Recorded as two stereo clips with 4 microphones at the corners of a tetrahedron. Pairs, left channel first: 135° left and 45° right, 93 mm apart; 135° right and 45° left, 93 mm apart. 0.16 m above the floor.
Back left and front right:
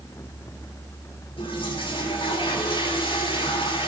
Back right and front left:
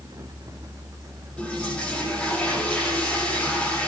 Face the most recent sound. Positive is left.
turn(degrees=150)